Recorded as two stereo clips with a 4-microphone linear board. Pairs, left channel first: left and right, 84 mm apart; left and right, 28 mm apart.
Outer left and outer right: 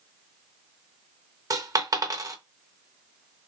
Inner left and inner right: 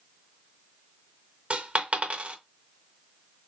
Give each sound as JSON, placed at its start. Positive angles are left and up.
{"t": 1.5, "sound": "a dropped coin", "side_deg": -45, "distance_m": 0.5}